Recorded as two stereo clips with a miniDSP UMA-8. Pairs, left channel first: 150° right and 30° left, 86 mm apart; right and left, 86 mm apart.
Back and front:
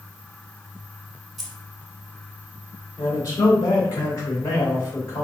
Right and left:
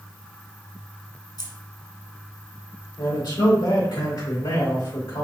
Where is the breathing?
No breathing in this recording.